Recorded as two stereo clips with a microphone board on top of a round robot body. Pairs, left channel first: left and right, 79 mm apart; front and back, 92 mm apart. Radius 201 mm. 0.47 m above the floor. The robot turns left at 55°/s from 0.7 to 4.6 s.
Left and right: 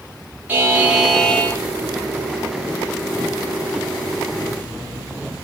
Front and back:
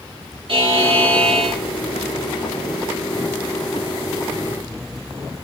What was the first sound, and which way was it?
A buzzer, 160° right.